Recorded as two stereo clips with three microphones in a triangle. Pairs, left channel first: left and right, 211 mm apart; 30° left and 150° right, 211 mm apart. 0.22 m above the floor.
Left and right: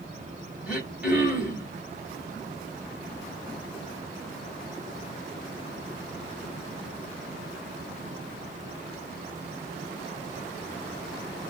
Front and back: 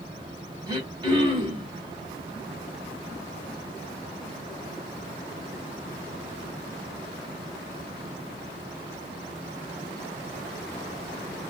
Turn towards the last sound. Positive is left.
turn(degrees=-165)